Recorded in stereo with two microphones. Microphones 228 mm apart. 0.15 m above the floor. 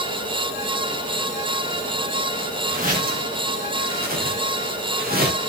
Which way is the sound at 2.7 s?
35° right (ahead or behind).